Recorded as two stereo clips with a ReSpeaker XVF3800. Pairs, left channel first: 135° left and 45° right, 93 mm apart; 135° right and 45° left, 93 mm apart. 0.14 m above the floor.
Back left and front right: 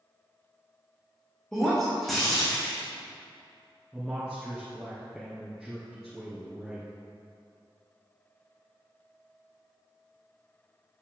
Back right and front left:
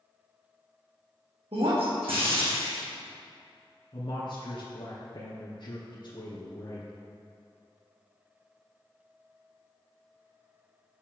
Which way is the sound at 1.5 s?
45° left.